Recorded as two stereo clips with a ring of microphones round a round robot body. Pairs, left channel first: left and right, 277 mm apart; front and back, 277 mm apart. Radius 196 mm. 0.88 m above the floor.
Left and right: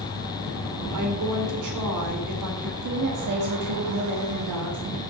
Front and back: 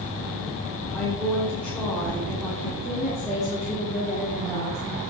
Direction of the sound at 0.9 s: 85° right.